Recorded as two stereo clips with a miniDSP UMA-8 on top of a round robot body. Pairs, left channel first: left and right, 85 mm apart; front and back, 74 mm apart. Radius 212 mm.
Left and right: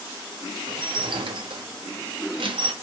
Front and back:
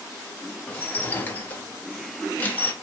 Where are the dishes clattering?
65° right, 0.9 m.